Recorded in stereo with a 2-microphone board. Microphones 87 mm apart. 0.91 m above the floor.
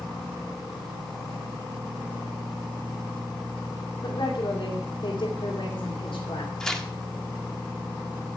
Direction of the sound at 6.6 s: 5° left (ahead or behind).